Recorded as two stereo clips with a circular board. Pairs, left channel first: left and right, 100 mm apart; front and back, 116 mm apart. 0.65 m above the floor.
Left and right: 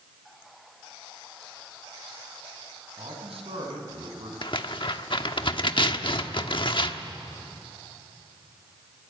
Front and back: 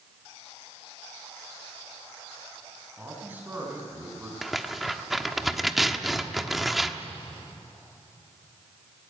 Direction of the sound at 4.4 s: 90° left.